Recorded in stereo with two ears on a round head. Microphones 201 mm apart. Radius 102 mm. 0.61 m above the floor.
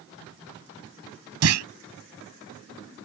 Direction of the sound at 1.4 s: 75° right (ahead or behind).